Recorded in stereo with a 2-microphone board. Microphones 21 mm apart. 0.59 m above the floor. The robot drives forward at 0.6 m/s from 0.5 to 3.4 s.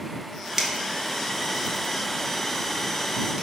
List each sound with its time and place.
0.6 s a finger snap: 25° right (ahead or behind), 0.6 m; by 3.4 s 10° right (ahead or behind), 1.7 m